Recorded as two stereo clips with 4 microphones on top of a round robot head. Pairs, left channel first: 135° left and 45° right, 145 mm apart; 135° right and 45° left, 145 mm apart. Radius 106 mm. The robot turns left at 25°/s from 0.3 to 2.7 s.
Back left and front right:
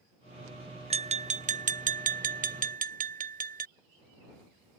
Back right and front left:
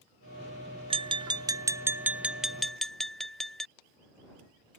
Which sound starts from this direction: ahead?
Tapping, at 0.9 s.